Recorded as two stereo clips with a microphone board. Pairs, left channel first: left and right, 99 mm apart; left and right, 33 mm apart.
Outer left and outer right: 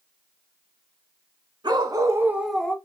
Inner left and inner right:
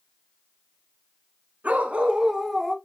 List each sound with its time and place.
1.6 s a dog barking: 50° right (ahead or behind), 1.1 m; by 2.8 s 15° left (ahead or behind), 0.7 m